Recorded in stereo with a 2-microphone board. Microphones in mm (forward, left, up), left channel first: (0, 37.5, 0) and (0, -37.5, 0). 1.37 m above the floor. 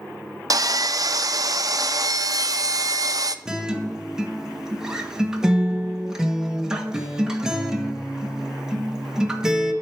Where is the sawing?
55° right (ahead or behind), 0.5 m.